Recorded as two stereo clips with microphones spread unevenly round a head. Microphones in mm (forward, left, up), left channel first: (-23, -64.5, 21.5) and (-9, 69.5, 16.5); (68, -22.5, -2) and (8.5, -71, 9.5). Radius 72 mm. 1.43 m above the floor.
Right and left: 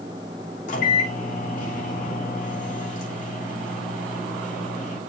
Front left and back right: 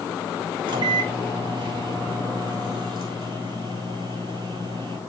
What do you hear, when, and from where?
0.7 s a microwave: 125° right, 3 m